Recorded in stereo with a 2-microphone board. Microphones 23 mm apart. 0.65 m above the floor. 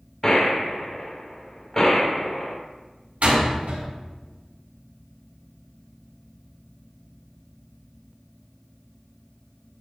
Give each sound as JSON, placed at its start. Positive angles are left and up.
{"t": 0.2, "sound": "a gunshot", "side_deg": 20, "distance_m": 2.5}
{"t": 3.2, "sound": "a door slam", "side_deg": -80, "distance_m": 5.0}